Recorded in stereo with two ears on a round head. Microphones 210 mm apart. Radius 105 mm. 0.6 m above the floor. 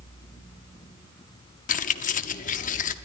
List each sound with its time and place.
1.7 s keys jangling: 35° left (ahead or behind), 0.7 m